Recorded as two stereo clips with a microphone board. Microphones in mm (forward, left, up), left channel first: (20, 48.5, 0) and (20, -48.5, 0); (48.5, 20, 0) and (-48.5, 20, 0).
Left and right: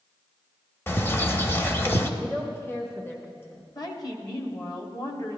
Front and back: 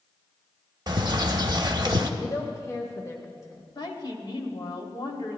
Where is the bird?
150° left, 0.7 m.